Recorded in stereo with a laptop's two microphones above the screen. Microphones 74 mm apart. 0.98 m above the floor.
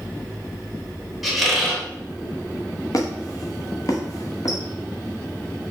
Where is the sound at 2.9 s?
50° left (ahead or behind), 0.7 m.